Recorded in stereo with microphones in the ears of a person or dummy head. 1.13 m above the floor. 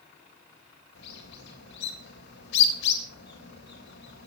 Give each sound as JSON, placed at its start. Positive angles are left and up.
{"t": 0.9, "sound": "a bird", "side_deg": 65, "distance_m": 3.5}